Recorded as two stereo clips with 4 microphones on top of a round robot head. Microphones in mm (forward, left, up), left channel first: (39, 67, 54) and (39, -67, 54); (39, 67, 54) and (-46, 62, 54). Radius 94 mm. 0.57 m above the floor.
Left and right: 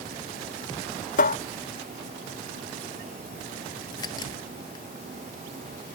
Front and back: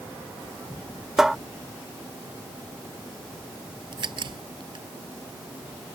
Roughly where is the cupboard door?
Left.